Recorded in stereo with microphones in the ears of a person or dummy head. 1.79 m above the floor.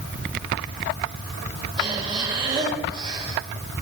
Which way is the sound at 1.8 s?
35° right (ahead or behind).